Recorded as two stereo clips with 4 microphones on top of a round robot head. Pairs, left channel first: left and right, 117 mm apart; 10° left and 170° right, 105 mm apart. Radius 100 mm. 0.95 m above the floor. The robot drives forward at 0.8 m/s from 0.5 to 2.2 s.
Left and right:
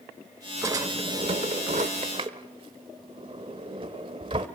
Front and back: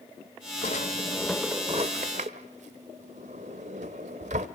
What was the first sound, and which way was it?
A drawer, 30° right.